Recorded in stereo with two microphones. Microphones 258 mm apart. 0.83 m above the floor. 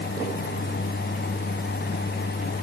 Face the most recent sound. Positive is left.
No sound to turn to.